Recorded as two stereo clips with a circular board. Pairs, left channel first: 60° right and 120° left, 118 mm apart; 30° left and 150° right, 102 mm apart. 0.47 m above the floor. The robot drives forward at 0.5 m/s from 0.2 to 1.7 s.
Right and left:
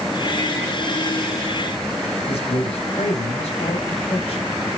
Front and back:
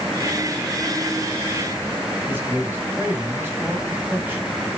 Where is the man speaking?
85° right, 3.5 m.